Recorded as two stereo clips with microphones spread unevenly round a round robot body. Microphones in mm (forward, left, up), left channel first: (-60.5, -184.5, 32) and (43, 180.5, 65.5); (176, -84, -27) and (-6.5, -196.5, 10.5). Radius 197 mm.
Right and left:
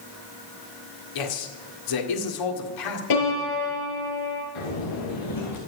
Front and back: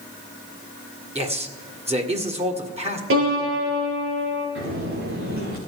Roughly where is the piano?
Behind right.